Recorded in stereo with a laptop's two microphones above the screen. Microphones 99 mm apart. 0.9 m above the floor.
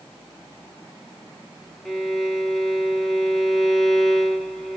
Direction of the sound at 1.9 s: 5° left (ahead or behind).